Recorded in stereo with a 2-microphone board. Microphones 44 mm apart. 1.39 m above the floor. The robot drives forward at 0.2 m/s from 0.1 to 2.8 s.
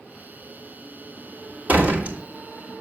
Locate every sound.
1.7 s a door slam: 40° right (ahead or behind), 2 m; by 2.2 s 35° right (ahead or behind), 2 m